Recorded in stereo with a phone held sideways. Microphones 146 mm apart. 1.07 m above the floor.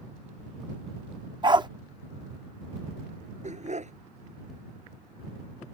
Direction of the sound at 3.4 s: 55° right (ahead or behind).